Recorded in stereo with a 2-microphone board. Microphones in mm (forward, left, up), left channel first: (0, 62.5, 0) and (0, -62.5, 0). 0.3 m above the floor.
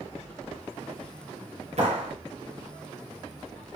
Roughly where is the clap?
Right.